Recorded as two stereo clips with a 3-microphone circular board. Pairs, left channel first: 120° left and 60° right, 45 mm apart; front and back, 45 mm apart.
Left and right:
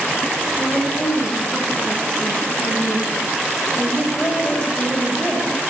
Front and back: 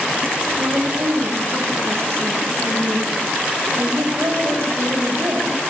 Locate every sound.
0.6 s a woman speaking: 170° right, 8.5 m